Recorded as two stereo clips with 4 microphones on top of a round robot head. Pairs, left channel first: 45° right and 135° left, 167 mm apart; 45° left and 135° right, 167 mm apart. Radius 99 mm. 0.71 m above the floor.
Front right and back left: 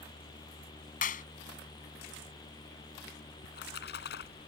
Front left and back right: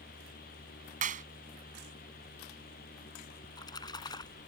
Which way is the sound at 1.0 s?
90° right.